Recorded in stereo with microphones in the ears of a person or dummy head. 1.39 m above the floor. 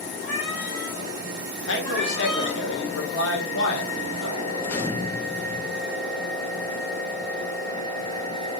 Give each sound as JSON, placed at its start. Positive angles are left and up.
{"t": 0.2, "sound": "a cat meowing", "side_deg": 25, "distance_m": 1.4}
{"t": 1.7, "sound": "a man speaking", "side_deg": 70, "distance_m": 1.2}
{"t": 4.6, "sound": "a gunshot", "side_deg": 10, "distance_m": 0.6}